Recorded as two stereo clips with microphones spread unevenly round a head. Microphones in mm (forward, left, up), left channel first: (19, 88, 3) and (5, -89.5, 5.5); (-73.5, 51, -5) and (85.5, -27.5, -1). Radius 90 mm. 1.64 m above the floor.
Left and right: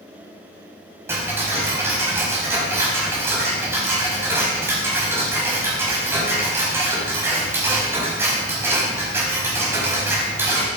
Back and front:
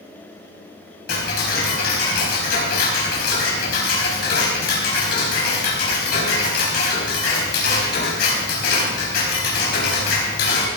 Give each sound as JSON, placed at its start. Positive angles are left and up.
{"t": 1.1, "sound": "ticking", "azimuth_deg": -170, "distance_m": 4.5}